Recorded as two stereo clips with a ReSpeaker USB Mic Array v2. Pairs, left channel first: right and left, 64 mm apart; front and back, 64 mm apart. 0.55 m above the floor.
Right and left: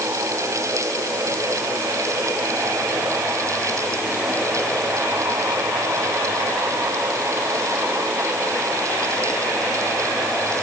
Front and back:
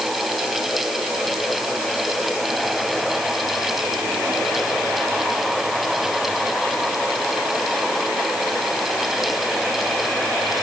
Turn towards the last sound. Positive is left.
No sound to turn to.